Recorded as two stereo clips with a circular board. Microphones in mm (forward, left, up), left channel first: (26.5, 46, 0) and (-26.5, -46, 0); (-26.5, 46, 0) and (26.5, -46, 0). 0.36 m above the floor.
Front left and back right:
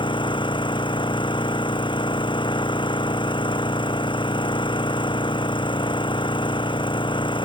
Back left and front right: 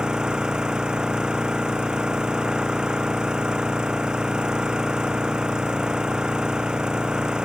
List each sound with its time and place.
0.0 s an engine running: 20° left